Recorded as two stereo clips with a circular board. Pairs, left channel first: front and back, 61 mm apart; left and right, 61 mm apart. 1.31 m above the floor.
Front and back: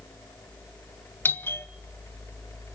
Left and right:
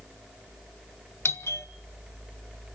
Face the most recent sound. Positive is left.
turn(degrees=50)